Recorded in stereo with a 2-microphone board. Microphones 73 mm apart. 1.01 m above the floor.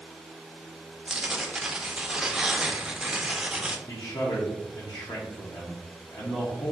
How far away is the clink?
No clink in this recording.